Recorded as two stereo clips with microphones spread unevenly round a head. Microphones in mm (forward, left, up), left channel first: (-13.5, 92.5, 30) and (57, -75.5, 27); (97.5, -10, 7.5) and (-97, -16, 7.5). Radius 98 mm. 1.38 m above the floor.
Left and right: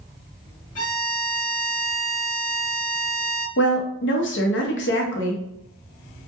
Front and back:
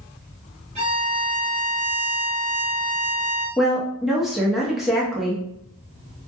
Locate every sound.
0.8 s a violin: 125° left, 1.1 m
3.6 s a woman speaking: 95° left, 0.7 m